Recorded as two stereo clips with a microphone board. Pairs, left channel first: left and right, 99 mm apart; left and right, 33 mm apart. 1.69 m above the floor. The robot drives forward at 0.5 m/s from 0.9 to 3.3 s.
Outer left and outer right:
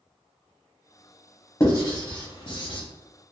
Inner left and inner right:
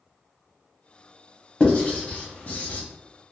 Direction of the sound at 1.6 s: 30° left (ahead or behind).